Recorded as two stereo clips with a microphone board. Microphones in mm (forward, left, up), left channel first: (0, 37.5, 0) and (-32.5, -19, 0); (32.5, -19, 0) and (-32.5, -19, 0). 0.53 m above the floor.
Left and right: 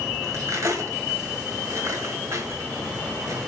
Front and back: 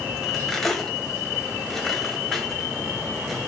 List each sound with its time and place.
0.2 s cutlery clinking: 85° right, 1.5 m